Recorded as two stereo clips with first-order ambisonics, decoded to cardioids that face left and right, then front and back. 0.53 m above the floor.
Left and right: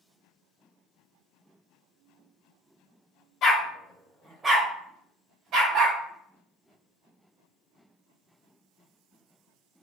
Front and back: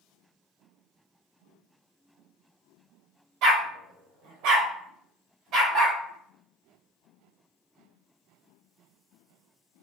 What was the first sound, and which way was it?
A dog barking, 145° left.